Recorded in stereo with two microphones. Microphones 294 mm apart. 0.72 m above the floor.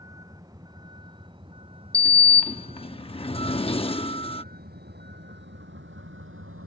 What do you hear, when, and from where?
0.0 s a vehicle: 10° right (ahead or behind); by 6.7 s 45° right (ahead or behind)
1.9 s a sliding door: 20° left (ahead or behind)